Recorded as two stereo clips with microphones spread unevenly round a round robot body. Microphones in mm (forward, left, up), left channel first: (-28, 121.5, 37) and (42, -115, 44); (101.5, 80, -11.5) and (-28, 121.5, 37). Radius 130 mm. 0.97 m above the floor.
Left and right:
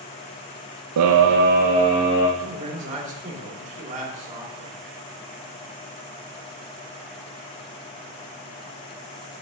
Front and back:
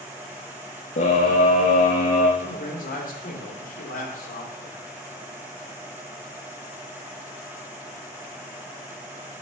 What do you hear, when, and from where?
1.0 s a scream: 55° right, 0.5 m; by 2.3 s 5° left, 1.2 m
2.4 s a man speaking: 15° right, 2 m